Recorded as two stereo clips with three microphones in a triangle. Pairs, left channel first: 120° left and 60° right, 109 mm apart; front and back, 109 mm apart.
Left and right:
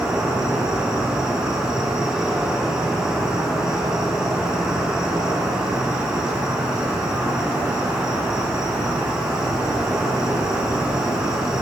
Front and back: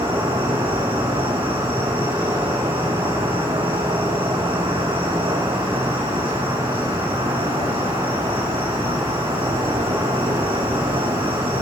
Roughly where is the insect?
Behind right.